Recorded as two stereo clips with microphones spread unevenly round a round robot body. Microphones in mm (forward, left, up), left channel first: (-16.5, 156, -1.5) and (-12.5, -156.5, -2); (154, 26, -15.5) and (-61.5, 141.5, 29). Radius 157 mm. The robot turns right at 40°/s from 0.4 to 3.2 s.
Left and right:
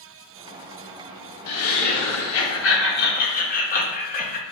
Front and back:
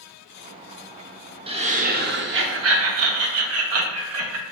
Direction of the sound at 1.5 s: 80° left.